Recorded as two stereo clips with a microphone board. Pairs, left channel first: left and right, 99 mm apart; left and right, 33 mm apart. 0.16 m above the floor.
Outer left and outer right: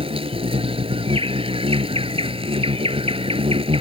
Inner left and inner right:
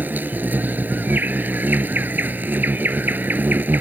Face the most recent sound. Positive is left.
turn(degrees=-65)  # may be behind; listen again after turning